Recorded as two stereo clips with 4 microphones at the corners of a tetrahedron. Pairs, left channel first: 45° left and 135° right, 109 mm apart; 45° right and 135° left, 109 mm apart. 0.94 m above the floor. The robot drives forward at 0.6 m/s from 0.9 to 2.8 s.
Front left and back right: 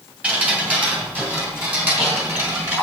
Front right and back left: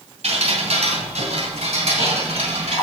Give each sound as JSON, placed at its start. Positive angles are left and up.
{"t": 0.2, "sound": "dripping", "azimuth_deg": 150, "distance_m": 3.0}